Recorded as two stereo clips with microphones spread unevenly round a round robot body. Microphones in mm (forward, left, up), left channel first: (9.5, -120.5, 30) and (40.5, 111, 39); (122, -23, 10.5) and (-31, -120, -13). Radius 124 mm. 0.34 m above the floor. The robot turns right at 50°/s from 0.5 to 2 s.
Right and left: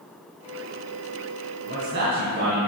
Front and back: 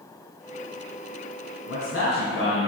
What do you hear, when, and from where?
1.7 s a man speaking: 30° left, 2.5 m; by 2.7 s 50° left, 2.5 m